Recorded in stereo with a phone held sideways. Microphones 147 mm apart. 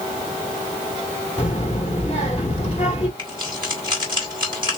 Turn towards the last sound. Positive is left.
turn(degrees=-30)  # may be behind; listen again after turning